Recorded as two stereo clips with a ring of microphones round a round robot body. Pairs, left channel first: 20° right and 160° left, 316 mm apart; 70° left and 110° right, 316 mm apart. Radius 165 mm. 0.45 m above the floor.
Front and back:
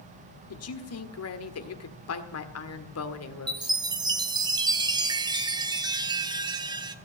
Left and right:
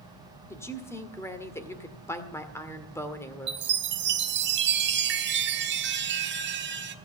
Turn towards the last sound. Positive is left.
turn(degrees=-135)